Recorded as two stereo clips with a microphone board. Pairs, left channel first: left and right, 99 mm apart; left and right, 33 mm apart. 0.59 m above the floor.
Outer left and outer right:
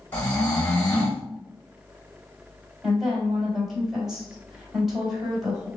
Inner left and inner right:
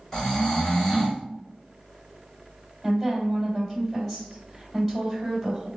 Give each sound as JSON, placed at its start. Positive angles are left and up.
{"t": 0.1, "sound": "snoring", "side_deg": 20, "distance_m": 2.0}
{"t": 2.8, "sound": "a woman speaking", "side_deg": -5, "distance_m": 2.5}